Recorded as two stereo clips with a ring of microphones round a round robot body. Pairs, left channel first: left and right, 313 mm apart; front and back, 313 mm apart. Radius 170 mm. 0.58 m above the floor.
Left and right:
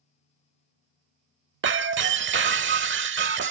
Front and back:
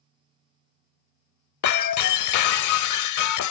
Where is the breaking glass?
35° right.